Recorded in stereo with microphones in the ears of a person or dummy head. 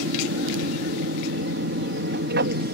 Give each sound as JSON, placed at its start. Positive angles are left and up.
{"t": 0.0, "sound": "an aircraft", "side_deg": -60}